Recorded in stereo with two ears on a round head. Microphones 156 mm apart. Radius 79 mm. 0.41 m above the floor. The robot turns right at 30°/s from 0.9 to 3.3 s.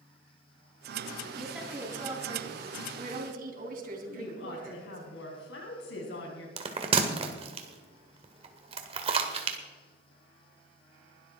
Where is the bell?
35° right (ahead or behind), 1.6 m.